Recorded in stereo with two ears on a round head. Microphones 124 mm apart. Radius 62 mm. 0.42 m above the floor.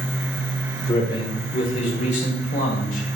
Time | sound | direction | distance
0.9 | a man speaking | 30° left (ahead or behind) | 1.6 m